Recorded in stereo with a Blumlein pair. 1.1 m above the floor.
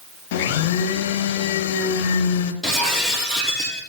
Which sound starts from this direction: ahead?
Breaking glass, at 2.6 s.